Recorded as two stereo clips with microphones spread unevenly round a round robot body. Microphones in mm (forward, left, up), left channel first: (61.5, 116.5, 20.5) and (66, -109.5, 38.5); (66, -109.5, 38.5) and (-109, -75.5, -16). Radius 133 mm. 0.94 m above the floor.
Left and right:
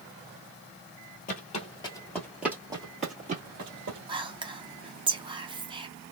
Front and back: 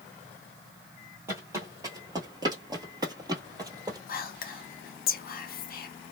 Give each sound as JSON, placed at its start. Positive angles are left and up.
{"t": 1.3, "sound": "footsteps", "azimuth_deg": 70, "distance_m": 1.0}
{"t": 4.1, "sound": "whispering", "azimuth_deg": -30, "distance_m": 0.6}